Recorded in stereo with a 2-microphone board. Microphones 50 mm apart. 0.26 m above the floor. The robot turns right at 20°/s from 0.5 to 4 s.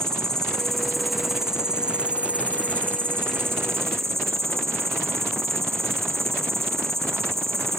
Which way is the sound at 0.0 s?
170° left.